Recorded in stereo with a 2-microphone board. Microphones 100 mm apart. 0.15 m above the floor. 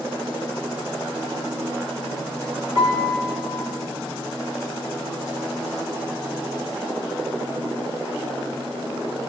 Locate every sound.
2.8 s a piano: 25° right (ahead or behind), 10 m